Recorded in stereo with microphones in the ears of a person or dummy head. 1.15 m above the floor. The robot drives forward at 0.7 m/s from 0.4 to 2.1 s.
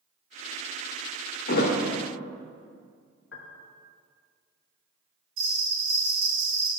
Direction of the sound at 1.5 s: 55° left (ahead or behind).